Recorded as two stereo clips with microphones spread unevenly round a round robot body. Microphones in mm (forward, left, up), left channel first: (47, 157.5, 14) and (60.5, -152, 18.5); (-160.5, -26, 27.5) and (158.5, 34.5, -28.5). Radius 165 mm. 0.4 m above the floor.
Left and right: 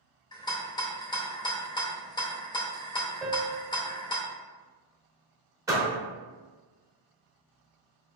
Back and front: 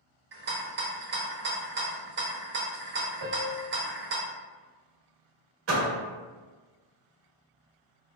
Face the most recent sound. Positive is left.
turn(degrees=-10)